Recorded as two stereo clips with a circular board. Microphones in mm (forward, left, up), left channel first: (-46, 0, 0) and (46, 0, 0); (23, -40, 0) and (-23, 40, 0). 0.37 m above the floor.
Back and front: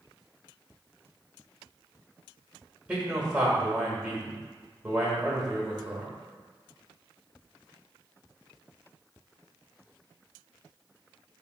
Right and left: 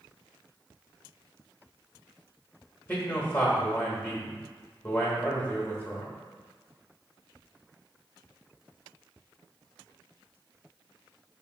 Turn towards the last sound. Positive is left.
turn(degrees=-60)